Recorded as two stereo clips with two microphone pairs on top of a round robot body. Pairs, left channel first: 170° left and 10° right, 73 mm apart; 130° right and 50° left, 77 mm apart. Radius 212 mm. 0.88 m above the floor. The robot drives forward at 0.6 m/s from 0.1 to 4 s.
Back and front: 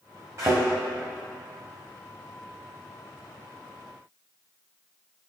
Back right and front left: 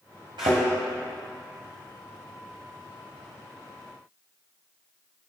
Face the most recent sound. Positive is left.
turn(degrees=170)